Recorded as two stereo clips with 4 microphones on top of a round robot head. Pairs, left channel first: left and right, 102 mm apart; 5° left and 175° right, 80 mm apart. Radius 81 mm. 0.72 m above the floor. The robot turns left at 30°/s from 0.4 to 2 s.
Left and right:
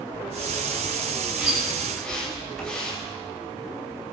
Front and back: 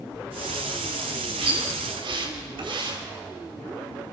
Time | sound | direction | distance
1.4 | a splash | 165° right | 5.5 m